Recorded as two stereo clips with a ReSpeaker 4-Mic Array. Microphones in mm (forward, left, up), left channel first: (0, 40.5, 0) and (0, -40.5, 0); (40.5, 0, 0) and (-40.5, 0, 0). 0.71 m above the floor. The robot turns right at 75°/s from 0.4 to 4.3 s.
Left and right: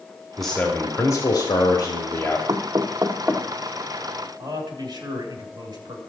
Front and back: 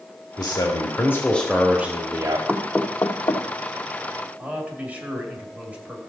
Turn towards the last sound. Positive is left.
turn(degrees=-110)